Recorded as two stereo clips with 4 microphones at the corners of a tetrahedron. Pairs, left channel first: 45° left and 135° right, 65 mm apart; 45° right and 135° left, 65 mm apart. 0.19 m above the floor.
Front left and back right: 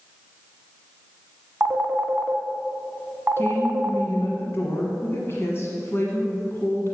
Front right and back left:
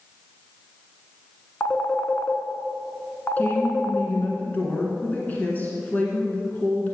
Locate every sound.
1.6 s a phone ringing: 90° right, 0.8 m
3.4 s a woman speaking: 10° left, 1.5 m